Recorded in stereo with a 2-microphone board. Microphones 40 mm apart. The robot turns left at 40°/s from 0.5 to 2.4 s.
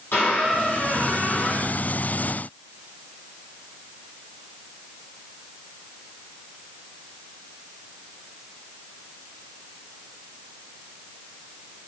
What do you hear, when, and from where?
0.1 s a squeak: 110° left, 2.5 m; by 1.8 s 60° left, 2.5 m